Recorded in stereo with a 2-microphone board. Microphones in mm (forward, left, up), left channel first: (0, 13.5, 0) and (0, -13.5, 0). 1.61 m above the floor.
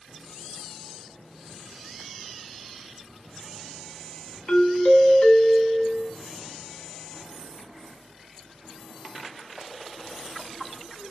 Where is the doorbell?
65° left (ahead or behind), 0.5 m.